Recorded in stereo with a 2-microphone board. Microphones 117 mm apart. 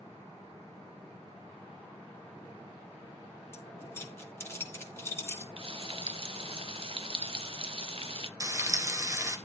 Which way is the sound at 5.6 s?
55° right (ahead or behind).